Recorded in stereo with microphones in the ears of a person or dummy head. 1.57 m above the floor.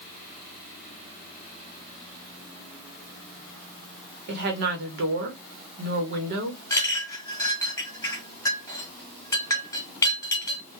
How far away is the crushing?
I don't hear crushing.